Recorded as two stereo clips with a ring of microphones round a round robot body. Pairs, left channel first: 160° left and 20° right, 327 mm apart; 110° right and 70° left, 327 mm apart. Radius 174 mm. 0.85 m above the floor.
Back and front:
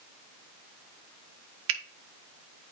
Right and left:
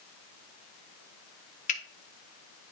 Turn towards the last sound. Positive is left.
turn(degrees=-45)